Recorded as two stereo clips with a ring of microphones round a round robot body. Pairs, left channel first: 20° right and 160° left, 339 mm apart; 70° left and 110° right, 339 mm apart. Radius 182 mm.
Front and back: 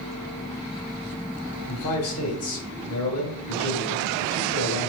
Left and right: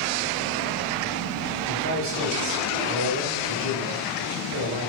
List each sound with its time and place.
1.7 s a man speaking: 65° right, 3 m